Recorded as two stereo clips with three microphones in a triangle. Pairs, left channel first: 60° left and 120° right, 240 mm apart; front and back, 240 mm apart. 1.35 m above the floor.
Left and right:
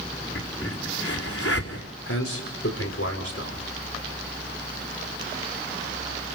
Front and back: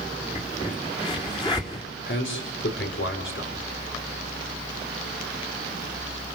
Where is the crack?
70° left, 4.5 m.